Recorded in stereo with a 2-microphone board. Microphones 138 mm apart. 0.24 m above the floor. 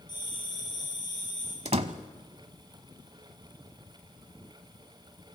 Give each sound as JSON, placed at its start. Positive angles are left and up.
{"t": 0.1, "sound": "a bell", "side_deg": 30, "distance_m": 7.5}
{"t": 1.6, "sound": "a door slam", "side_deg": -50, "distance_m": 1.0}